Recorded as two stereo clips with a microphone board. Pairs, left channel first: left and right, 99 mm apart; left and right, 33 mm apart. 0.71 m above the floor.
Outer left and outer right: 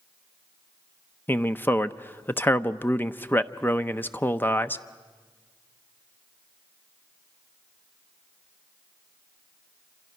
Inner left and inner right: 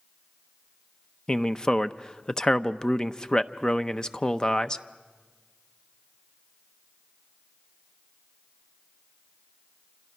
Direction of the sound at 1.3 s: 20° left (ahead or behind).